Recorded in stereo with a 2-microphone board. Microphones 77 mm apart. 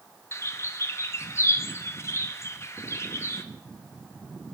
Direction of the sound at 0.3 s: 35° left (ahead or behind).